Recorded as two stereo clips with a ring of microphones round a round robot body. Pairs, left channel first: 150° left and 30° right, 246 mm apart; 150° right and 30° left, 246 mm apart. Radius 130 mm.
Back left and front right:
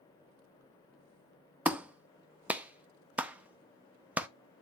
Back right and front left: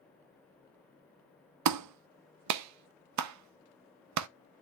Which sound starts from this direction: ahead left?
A clap, at 1.6 s.